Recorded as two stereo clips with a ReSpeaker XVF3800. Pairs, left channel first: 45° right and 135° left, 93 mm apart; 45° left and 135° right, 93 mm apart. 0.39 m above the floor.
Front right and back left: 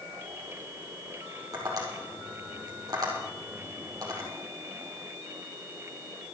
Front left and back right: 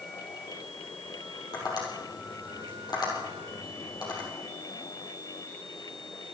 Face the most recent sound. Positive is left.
turn(degrees=85)